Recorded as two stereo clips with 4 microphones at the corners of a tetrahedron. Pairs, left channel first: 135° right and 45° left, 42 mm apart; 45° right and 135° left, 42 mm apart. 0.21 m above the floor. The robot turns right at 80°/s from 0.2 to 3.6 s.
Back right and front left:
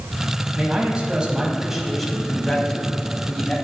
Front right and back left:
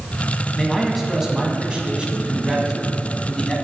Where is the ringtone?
I don't hear a ringtone.